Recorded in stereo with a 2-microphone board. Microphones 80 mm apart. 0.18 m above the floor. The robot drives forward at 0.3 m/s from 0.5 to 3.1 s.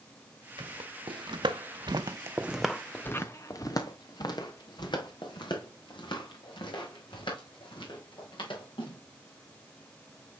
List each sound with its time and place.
0.6 s footsteps: 80° right, 1.8 m; by 9.0 s 75° left (ahead or behind), 5.5 m